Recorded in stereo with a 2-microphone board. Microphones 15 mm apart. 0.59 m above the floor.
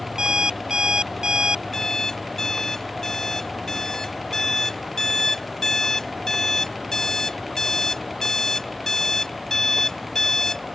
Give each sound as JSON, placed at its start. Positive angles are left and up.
{"t": 0.2, "sound": "an alarm clock", "side_deg": -55}
{"t": 1.7, "sound": "an alarm clock", "side_deg": 25}